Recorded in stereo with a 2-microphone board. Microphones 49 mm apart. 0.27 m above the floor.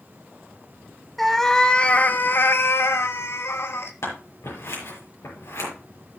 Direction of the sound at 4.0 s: 70° left (ahead or behind).